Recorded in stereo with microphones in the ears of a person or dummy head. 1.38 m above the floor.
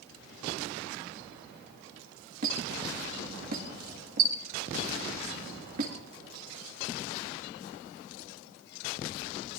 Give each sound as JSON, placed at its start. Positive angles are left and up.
{"t": 2.4, "sound": "a squeak", "side_deg": -45, "distance_m": 1.7}